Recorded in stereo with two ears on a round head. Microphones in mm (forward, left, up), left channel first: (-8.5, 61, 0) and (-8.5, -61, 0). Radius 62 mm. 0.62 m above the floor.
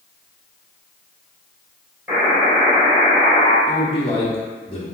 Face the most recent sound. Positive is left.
turn(degrees=40)  # may be behind; listen again after turning